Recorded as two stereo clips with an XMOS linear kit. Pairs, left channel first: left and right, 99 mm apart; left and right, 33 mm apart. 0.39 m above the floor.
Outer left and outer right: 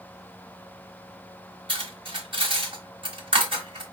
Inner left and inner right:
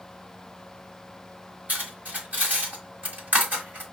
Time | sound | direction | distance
1.7 | cutlery clinking | 60° right (ahead or behind) | 1.3 m